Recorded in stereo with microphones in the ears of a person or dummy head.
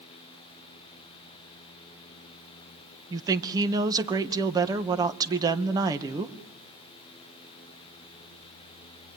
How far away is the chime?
I don't hear a chime.